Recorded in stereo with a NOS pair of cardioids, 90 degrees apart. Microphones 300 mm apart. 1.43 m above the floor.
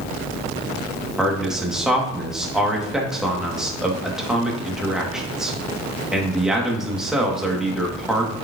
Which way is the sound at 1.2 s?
Straight ahead.